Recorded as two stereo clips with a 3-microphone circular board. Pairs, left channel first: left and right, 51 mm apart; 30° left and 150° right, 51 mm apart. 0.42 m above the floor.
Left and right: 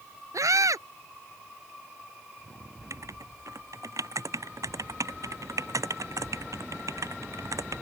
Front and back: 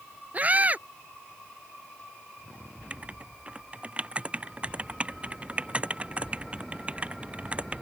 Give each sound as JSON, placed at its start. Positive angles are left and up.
{"t": 0.3, "sound": "a scream", "azimuth_deg": -90}
{"t": 2.9, "sound": "writing", "azimuth_deg": -85}